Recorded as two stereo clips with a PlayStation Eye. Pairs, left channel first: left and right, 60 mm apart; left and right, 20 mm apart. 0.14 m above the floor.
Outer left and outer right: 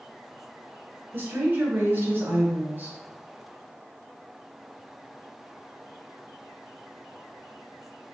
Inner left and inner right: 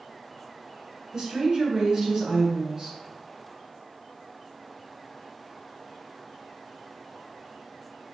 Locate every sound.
1.1 s a woman speaking: 35° right (ahead or behind), 1.3 m